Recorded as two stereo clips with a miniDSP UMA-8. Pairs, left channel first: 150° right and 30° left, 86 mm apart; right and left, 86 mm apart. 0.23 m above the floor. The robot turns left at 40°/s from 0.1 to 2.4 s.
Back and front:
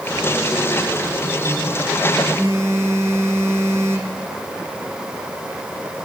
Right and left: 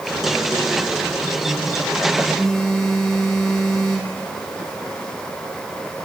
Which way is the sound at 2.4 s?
5° right.